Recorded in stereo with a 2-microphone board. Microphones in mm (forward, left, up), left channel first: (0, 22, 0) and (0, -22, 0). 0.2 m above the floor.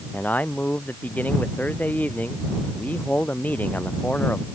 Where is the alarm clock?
I don't hear an alarm clock.